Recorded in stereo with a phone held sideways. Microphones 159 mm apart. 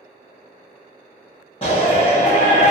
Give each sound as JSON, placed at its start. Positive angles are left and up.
{"t": 1.6, "sound": "a shout", "side_deg": 35, "distance_m": 1.0}